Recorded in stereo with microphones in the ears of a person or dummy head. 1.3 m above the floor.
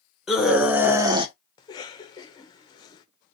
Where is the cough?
25° left (ahead or behind), 0.7 m.